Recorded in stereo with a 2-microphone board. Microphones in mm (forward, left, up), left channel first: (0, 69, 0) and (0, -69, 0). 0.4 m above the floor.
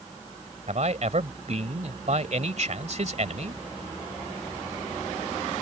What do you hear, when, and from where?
0.7 s a man speaking: 60° right (ahead or behind)